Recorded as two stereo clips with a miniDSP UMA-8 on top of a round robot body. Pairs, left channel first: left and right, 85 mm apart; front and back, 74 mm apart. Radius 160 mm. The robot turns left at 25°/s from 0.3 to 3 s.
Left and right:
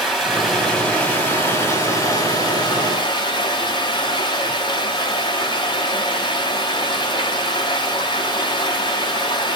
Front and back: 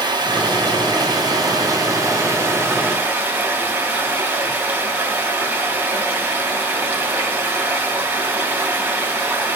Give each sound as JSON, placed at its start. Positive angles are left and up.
{"t": 0.0, "sound": "running water", "azimuth_deg": -175, "distance_m": 3.5}